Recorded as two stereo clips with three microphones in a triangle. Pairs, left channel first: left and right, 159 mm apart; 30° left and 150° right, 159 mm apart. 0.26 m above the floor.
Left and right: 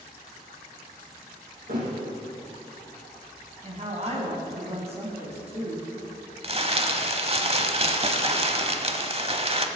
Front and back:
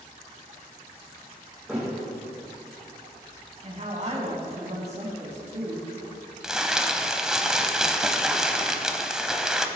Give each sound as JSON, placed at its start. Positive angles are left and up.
{"t": 1.7, "sound": "a thud", "azimuth_deg": -65, "distance_m": 4.0}
{"t": 3.6, "sound": "a woman speaking", "azimuth_deg": -125, "distance_m": 2.5}
{"t": 6.4, "sound": "crumpling", "azimuth_deg": -65, "distance_m": 0.8}